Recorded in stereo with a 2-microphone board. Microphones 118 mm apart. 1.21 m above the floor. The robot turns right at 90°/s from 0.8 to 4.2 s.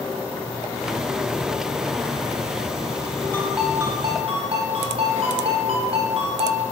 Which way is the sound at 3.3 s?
160° left.